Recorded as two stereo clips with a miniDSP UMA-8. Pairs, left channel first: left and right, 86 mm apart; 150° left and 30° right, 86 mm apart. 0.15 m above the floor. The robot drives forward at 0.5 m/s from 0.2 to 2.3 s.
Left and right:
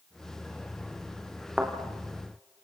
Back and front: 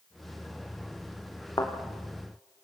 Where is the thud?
170° right, 5 m.